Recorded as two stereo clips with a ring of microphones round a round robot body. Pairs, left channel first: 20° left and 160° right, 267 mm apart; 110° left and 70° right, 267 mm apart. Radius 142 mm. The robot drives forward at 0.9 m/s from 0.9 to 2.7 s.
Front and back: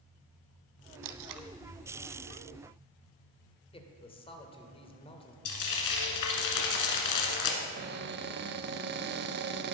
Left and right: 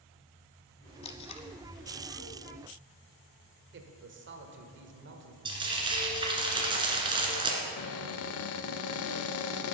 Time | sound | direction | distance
1.0 | tape being pulled | straight behind | 0.6 m
3.7 | a man speaking | 40° right | 1.4 m
5.5 | frying | 5° left | 1.9 m
7.6 | a cupboard door | 150° left | 0.6 m